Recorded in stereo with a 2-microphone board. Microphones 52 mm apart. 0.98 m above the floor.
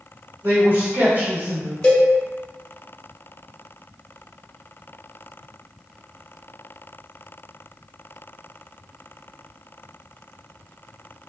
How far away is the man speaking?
About 1.2 m.